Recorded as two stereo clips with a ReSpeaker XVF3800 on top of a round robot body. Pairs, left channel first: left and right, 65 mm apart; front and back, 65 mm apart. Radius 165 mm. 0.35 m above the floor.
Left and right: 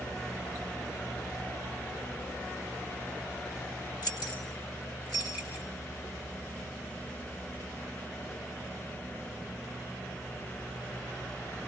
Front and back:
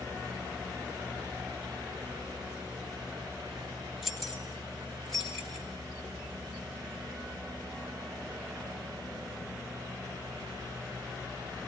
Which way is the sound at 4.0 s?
90° left.